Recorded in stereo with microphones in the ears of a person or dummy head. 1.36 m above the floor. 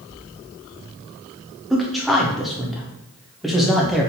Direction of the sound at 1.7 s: Centre (ahead or behind).